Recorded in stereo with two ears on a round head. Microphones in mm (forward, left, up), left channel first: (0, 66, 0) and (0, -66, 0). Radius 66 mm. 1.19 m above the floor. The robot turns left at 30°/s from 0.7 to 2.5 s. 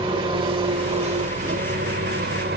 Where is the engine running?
35° right, 1.2 m; by 2.6 s 90° right, 1.2 m.